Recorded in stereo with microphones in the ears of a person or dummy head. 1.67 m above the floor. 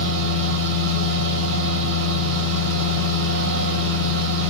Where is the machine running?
70° right (ahead or behind), 1.3 m.